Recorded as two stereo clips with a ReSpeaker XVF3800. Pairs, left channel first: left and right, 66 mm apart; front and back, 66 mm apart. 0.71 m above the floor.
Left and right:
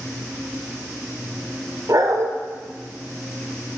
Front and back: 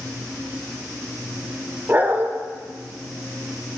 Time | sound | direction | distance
1.9 | a dog barking | 120° right | 0.7 m